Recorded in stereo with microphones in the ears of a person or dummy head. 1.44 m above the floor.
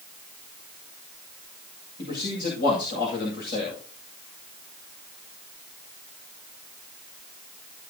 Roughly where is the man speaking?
Left.